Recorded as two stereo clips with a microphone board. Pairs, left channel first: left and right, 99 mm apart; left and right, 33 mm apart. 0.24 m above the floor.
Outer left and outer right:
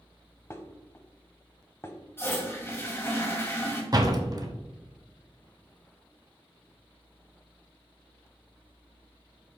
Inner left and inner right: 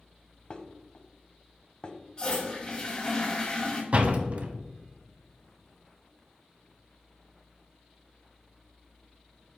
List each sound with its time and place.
0.5 s dishes clattering: 25° left (ahead or behind), 0.7 m
2.2 s a toilet flushing: 25° left (ahead or behind), 1.5 m
3.9 s a door slam: 40° right (ahead or behind), 1.0 m